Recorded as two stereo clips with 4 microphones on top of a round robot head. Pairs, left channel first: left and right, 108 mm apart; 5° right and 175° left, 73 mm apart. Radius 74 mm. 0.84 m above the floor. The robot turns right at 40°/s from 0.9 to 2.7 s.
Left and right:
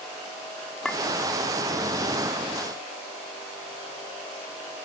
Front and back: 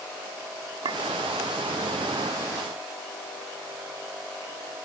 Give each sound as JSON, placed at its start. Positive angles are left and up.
{"t": 0.8, "sound": "a clink", "azimuth_deg": 175}